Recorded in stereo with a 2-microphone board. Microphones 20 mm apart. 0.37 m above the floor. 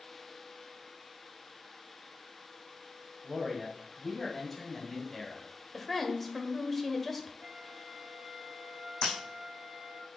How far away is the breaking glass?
About 3.5 m.